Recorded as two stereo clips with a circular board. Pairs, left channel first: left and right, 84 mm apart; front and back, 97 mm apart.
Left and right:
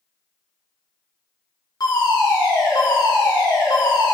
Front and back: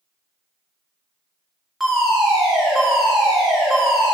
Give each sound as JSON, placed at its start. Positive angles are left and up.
{"t": 1.8, "sound": "a fire alarm", "azimuth_deg": 95, "distance_m": 3.0}